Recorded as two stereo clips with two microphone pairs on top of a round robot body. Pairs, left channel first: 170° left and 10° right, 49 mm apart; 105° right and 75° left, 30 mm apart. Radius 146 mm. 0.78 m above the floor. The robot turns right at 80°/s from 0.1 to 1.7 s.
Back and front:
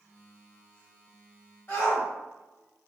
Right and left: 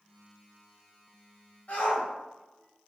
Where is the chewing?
I don't hear chewing.